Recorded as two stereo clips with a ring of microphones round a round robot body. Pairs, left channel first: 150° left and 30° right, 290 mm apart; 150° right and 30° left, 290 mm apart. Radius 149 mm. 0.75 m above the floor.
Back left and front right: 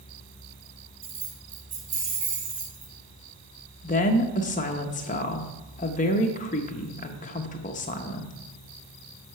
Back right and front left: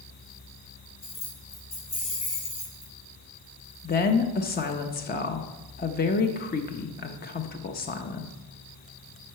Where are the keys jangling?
80° right, 2.5 m.